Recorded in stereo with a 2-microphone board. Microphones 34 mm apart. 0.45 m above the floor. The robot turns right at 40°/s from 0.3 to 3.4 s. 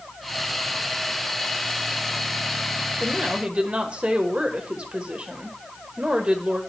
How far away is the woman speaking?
About 1.4 m.